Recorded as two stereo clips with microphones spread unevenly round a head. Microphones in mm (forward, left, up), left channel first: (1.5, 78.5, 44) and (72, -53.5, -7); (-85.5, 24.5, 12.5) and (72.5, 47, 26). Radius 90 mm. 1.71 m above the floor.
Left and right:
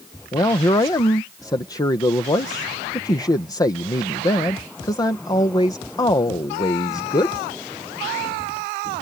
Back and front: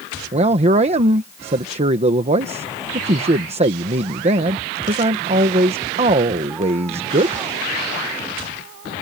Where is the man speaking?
55° left.